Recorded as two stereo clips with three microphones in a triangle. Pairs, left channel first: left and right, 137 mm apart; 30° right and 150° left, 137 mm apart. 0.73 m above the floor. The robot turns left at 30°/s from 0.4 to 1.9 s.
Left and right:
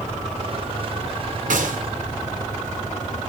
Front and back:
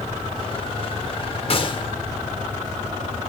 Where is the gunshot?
75° right, 1.9 m; by 1.8 s 85° right, 1.9 m.